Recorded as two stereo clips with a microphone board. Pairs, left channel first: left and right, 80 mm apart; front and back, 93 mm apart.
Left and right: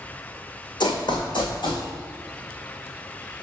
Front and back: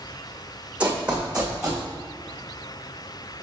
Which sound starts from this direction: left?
Running footsteps, at 0.8 s.